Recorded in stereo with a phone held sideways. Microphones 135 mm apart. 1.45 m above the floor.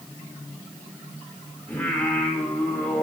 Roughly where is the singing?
Centre.